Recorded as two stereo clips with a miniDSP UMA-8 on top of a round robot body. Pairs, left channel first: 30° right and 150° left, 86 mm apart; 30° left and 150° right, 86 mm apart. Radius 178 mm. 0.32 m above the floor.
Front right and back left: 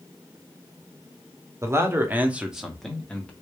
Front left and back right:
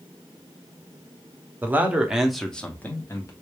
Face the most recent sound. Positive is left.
turn(degrees=30)